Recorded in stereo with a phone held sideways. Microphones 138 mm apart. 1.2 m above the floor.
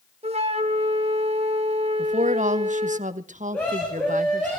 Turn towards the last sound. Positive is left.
turn(degrees=10)  # may be behind; listen again after turning